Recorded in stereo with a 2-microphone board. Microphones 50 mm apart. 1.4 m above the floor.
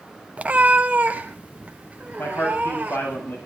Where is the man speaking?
55° left (ahead or behind), 9 m.